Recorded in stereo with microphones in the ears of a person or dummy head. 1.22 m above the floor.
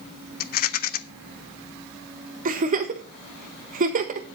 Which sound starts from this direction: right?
A giggle, at 2.5 s.